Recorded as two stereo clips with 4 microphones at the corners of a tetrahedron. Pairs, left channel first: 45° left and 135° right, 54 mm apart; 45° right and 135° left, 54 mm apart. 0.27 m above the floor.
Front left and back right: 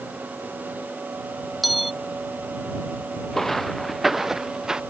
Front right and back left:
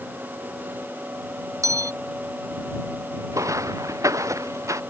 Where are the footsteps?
130° left; by 4.8 s 150° left.